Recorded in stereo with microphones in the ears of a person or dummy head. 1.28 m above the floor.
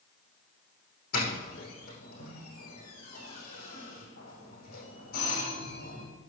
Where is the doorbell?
55° left (ahead or behind), 5 m.